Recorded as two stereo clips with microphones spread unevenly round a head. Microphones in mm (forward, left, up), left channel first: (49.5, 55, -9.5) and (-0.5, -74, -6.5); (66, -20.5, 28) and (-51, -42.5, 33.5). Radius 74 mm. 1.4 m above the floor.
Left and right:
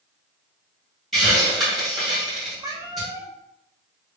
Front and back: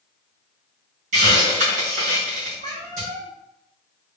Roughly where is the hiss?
Behind.